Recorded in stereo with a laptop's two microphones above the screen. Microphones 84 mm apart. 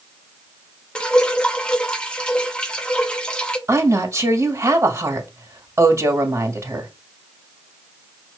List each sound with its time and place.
0.9 s dripping: 10° left (ahead or behind), 0.7 m
3.7 s a woman speaking: 35° right (ahead or behind), 2.0 m